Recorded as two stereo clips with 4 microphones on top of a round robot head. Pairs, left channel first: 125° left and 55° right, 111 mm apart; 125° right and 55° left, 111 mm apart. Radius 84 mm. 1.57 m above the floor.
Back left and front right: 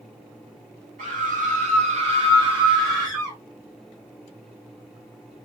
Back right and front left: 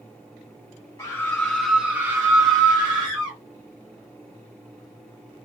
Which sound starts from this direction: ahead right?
A scream, at 1.0 s.